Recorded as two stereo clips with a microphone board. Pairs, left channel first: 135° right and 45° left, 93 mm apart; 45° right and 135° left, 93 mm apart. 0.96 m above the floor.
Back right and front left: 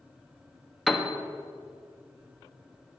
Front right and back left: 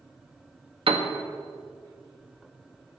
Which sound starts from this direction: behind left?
A piano, at 0.9 s.